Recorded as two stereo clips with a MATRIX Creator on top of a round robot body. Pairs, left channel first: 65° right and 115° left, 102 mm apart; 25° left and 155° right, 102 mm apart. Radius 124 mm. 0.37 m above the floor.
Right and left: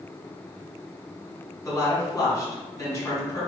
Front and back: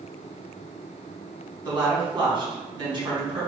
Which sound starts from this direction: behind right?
A woman speaking, at 1.6 s.